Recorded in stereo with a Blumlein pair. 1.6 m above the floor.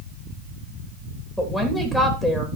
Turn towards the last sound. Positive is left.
turn(degrees=0)